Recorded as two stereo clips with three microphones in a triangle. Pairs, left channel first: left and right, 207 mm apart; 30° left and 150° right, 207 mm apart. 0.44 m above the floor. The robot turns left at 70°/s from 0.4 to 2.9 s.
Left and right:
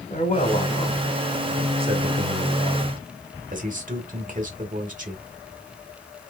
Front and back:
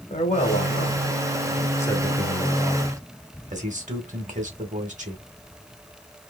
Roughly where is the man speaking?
Ahead left.